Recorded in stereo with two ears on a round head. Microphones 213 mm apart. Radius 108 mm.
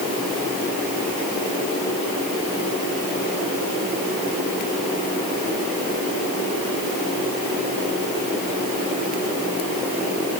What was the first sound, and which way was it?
Only background noise.